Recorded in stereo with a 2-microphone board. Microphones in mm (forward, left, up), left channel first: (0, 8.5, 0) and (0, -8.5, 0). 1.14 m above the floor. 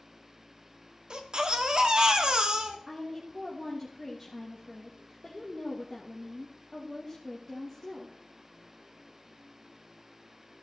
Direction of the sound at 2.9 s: 5° right (ahead or behind).